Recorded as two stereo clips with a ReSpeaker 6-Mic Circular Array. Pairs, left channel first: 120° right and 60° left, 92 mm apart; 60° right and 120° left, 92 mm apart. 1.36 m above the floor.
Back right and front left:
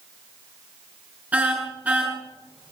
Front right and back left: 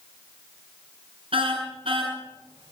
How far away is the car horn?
About 7.5 m.